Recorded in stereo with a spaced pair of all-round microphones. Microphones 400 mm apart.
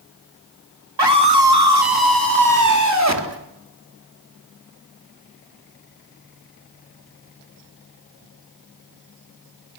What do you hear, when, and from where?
1.0 s a scream: 85° right, 3 m; by 3.4 s 40° right (ahead or behind), 4.5 m